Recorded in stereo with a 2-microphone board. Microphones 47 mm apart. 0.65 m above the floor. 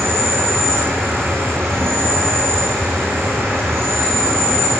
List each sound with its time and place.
0.0 s an insect: 60° right (ahead or behind), 4.5 m